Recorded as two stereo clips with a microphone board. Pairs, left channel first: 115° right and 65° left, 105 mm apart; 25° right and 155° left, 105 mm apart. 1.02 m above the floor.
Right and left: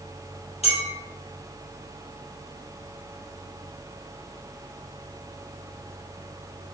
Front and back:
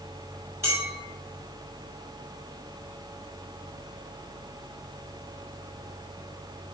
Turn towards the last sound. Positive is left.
turn(degrees=-135)